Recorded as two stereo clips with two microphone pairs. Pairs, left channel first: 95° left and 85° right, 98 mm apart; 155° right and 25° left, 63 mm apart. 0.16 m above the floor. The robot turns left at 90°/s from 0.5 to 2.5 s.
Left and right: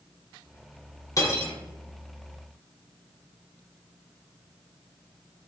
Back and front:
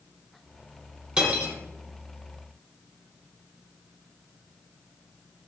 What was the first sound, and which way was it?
Cutlery clinking, 100° left.